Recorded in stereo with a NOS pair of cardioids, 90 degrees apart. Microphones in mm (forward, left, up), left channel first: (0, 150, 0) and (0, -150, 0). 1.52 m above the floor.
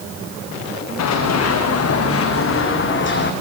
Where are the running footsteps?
60° left, 7 m; by 3.3 s 35° left, 6.5 m.